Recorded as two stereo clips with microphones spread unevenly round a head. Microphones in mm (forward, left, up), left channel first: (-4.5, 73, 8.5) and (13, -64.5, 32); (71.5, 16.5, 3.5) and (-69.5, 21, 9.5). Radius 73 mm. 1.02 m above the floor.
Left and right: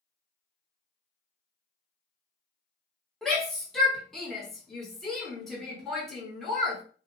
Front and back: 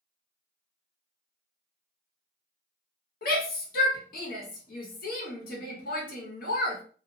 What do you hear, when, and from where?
3.2 s a shout: 10° left, 1.3 m